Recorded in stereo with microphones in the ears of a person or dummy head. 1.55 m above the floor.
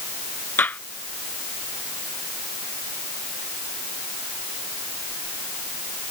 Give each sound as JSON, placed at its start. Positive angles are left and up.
{"t": 0.6, "sound": "a gunshot", "side_deg": 5}